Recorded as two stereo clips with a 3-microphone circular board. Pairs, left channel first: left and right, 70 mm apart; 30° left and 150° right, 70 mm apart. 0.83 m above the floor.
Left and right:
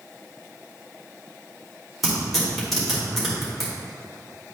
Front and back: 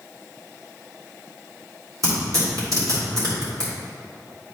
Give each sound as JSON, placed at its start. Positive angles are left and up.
{"t": 2.0, "sound": "tearing paper", "azimuth_deg": 180, "distance_m": 2.5}